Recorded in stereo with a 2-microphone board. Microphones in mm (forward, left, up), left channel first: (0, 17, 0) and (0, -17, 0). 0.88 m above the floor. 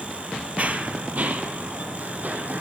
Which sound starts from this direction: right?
Running footsteps, at 0.6 s.